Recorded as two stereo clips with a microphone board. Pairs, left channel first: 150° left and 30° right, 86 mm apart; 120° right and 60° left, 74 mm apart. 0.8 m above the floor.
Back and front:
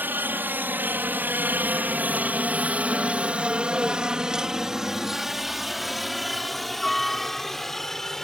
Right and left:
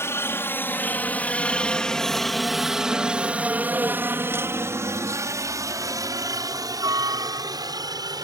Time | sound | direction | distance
0.0 | a helicopter | 85° right | ?